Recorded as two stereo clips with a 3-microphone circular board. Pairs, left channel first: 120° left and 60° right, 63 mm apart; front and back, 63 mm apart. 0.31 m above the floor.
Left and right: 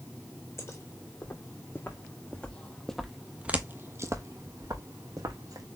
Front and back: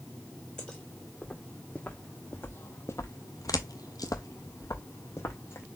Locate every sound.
0.6 s footsteps: 80° left, 1.6 m; by 5.7 s 50° right, 1.3 m